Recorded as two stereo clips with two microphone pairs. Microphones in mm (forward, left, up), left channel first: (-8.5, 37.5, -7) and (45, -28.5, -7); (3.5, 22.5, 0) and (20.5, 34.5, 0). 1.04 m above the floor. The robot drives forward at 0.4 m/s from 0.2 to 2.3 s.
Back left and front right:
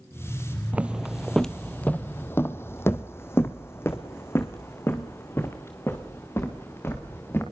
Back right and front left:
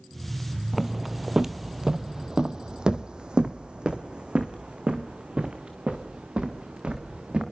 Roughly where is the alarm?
I don't hear an alarm.